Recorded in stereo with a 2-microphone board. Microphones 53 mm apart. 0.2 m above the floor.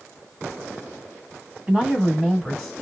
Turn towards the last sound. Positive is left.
turn(degrees=10)  # may be behind; listen again after turning